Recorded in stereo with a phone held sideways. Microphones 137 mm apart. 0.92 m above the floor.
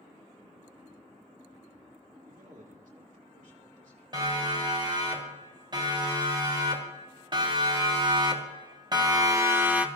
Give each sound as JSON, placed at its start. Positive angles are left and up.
{"t": 2.3, "sound": "a man speaking", "side_deg": -70, "distance_m": 1.9}
{"t": 4.1, "sound": "a siren", "side_deg": -35, "distance_m": 6.0}